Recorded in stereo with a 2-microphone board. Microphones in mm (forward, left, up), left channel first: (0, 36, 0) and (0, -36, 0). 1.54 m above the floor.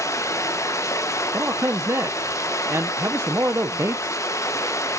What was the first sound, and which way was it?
Running water, 45° left (ahead or behind).